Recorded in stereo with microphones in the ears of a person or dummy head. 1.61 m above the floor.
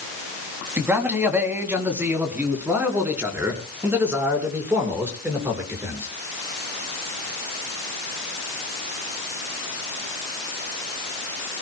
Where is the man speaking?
10° right (ahead or behind), 3 m.